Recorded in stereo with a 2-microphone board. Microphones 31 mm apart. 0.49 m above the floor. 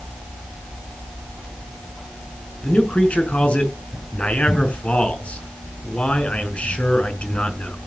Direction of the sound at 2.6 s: 45° left (ahead or behind).